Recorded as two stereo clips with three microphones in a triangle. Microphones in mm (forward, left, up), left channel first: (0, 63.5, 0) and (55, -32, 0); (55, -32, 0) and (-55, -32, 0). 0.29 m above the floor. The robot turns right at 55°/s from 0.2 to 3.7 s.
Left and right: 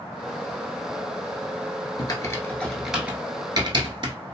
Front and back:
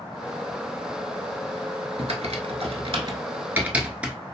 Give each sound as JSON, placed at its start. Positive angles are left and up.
{"t": 2.0, "sound": "typing on a keyboard", "azimuth_deg": 165, "distance_m": 0.7}